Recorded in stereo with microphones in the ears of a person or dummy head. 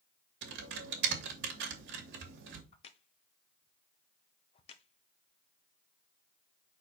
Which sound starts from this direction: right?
Typing on a keyboard, at 0.4 s.